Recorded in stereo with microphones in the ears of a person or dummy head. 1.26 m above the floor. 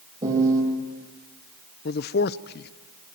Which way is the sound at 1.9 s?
55° left (ahead or behind).